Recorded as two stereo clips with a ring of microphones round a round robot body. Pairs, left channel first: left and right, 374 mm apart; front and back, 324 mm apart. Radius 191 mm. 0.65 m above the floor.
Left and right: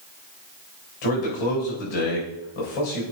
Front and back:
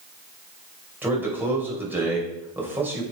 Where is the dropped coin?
No dropped coin in this recording.